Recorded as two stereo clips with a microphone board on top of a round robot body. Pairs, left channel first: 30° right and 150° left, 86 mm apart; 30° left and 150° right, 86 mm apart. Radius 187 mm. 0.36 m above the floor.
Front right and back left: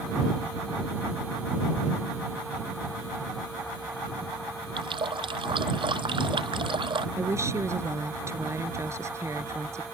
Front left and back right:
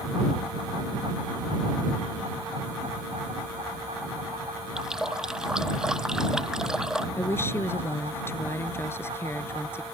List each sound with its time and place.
4.8 s a running tap: 125° left
7.2 s a woman speaking: 95° left